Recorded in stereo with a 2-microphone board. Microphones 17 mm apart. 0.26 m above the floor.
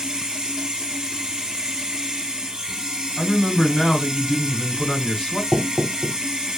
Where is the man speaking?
45° left (ahead or behind), 1.9 m.